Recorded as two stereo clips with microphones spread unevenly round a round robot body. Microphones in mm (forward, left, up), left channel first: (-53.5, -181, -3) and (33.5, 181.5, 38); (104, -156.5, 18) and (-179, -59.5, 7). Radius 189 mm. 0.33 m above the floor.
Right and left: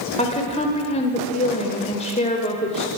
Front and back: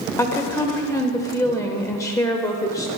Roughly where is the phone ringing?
I don't hear a phone ringing.